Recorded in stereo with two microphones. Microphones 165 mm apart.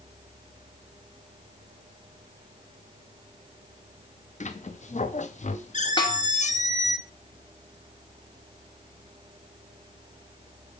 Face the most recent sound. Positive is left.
turn(degrees=30)  # may be behind; listen again after turning